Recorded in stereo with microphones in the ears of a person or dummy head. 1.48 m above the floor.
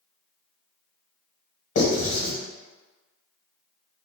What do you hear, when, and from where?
1.8 s writing: 65° left (ahead or behind), 1.3 m